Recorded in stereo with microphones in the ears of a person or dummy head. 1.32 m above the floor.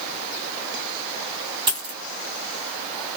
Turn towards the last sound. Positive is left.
turn(degrees=-25)  # may be behind; listen again after turning